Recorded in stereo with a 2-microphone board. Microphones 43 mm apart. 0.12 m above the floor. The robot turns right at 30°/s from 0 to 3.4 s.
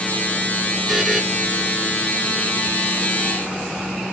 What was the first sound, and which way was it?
A buzzer, 5° right (ahead or behind).